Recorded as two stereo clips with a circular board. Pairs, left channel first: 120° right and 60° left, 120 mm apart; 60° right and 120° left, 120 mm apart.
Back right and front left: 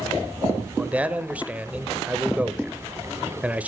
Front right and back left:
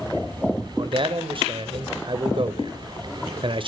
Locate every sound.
0.8 s a man speaking: 135° left, 1.2 m